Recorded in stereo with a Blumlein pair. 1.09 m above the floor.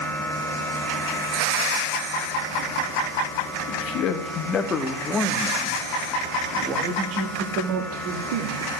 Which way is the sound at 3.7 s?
40° left.